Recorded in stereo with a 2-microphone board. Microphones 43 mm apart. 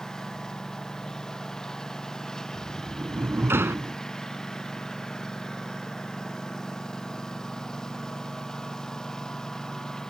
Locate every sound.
0.0 s a lawn mower: 15° left (ahead or behind)
2.5 s a sliding door: 75° right (ahead or behind)